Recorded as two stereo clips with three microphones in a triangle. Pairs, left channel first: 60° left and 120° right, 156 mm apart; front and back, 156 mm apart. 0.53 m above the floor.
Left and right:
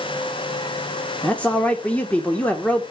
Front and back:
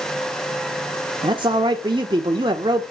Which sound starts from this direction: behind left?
A man speaking, at 1.2 s.